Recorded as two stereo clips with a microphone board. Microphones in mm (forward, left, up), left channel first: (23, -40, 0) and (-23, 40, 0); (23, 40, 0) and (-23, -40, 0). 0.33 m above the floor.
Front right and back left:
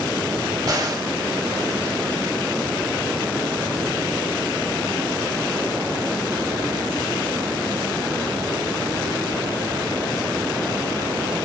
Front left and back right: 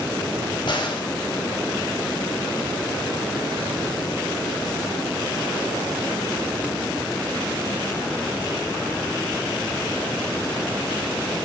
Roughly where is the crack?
Left.